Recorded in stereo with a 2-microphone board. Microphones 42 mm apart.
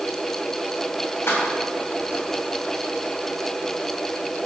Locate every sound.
1.3 s keys jangling: 85° left, 4 m